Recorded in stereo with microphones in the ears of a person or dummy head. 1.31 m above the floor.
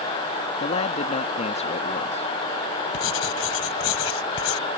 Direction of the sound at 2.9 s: 70° left (ahead or behind).